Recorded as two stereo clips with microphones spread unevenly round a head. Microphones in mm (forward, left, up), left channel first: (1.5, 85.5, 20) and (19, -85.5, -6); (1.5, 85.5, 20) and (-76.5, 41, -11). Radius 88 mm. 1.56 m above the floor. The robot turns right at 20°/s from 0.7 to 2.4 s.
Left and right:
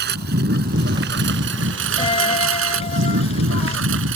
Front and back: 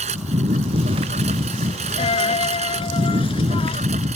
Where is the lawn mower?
120° right; by 4.2 s 105° right.